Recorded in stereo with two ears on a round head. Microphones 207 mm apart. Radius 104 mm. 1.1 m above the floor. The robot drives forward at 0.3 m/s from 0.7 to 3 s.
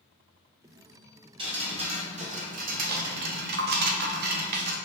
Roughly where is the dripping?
Right.